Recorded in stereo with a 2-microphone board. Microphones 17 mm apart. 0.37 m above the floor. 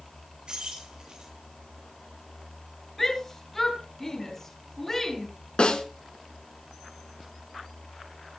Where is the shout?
15° left (ahead or behind), 6.5 m.